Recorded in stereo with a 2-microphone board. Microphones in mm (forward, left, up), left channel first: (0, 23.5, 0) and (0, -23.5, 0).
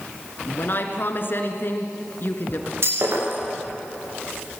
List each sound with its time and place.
0.5 s a woman speaking: 50° left (ahead or behind), 2.5 m
2.8 s breaking glass: 65° right (ahead or behind), 10 m